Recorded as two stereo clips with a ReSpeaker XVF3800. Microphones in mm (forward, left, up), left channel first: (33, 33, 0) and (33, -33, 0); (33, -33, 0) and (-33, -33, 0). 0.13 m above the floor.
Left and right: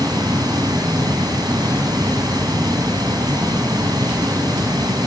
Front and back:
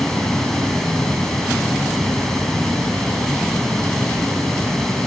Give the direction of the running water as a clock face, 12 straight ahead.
3 o'clock.